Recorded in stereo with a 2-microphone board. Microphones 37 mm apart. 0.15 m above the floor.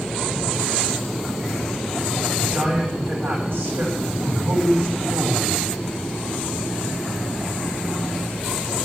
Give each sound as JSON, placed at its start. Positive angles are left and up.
{"t": 2.4, "sound": "a man speaking", "side_deg": -65, "distance_m": 8.0}